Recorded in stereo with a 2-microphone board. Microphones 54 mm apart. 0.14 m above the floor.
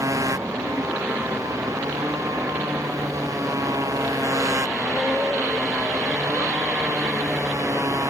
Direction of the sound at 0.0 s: 75° right (ahead or behind).